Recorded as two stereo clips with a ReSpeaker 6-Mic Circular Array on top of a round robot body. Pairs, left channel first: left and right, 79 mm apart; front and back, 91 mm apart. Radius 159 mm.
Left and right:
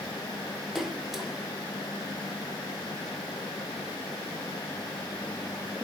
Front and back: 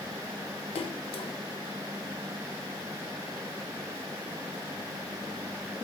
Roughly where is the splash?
Ahead.